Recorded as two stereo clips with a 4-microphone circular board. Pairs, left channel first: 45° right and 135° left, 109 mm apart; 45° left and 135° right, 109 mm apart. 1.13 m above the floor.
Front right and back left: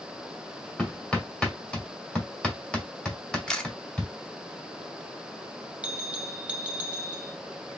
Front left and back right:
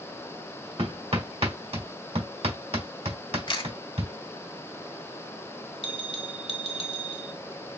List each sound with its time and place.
0.8 s hammering: 125° right, 1.8 m
3.5 s a camera shutter: 35° left, 1.0 m
5.8 s a bell: 60° left, 1.1 m